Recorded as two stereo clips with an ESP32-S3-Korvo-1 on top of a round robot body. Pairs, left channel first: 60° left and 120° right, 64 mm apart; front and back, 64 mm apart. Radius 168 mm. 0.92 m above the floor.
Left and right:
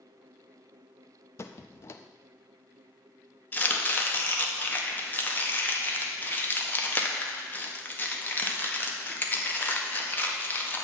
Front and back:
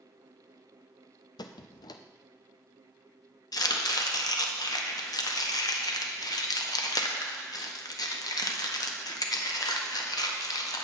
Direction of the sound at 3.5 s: Straight ahead.